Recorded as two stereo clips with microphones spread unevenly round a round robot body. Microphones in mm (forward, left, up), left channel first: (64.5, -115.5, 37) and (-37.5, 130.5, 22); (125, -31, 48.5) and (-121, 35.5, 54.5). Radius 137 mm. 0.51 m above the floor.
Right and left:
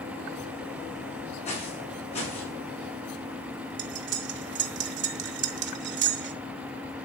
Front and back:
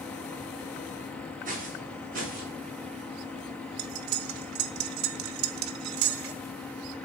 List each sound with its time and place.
1.4 s footsteps: 135° right, 9 m; by 2.5 s 140° right, 8.5 m
3.8 s cutlery clinking: 160° left, 0.9 m